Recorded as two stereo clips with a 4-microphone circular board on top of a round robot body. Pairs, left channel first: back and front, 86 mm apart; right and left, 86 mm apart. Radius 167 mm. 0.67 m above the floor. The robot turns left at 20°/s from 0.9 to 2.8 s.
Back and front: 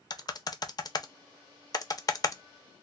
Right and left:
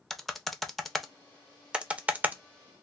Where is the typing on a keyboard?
Straight behind, 0.6 m; by 2.8 s 145° left, 0.6 m.